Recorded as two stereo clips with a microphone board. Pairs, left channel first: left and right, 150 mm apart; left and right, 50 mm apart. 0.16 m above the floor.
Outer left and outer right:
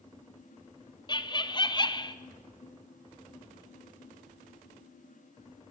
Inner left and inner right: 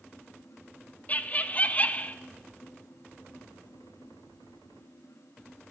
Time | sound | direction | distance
1.1 | laughter | 30° left (ahead or behind) | 1.2 m